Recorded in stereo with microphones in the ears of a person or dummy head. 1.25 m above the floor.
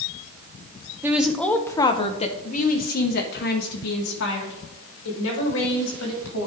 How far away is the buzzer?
I don't hear a buzzer.